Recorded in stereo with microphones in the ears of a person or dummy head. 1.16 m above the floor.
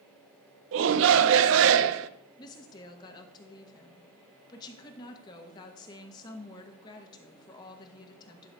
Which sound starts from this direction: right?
A shout, at 0.7 s.